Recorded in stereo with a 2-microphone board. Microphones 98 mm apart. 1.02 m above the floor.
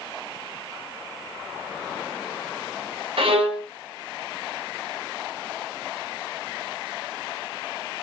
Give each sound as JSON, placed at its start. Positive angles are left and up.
{"t": 3.2, "sound": "a violin", "side_deg": -70, "distance_m": 1.0}